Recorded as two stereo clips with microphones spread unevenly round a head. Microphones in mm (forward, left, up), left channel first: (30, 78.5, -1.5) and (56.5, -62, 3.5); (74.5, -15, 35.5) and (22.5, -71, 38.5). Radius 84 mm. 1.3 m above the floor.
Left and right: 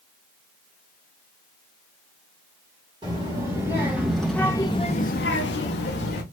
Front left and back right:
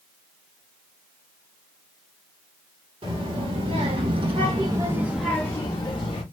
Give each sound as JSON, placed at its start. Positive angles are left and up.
{"t": 3.0, "sound": "a child speaking", "azimuth_deg": -145, "distance_m": 1.3}